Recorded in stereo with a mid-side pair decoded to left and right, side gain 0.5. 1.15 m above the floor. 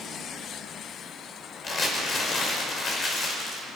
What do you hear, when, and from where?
1.6 s crumpling: 45° left, 5.5 m